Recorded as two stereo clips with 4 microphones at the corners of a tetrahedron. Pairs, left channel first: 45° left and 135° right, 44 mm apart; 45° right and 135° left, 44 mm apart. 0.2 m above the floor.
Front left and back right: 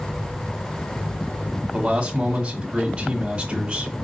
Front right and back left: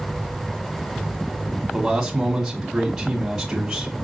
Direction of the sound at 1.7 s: 165° right.